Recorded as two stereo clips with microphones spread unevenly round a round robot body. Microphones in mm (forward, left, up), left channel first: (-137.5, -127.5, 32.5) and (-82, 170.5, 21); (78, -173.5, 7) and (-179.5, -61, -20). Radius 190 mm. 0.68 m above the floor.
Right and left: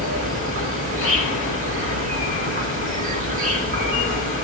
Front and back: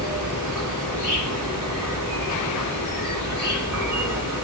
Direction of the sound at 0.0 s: 70° left.